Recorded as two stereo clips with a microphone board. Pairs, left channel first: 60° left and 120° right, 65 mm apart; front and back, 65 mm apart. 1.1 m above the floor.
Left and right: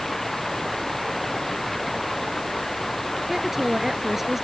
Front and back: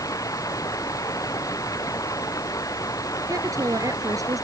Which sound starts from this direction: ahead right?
Running water, at 0.0 s.